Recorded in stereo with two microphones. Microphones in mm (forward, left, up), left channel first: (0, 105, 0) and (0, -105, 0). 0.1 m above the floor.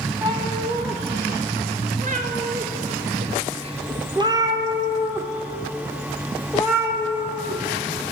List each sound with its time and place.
0.2 s a cat meowing: 20° right (ahead or behind), 1.5 m; by 7.6 s 5° right (ahead or behind), 2.5 m